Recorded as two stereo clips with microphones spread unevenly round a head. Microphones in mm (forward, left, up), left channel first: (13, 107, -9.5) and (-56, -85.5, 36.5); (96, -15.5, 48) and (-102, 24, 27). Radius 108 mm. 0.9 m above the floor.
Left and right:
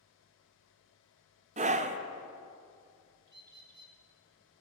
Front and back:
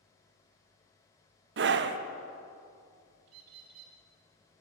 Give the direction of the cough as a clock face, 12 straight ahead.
I don't hear a cough.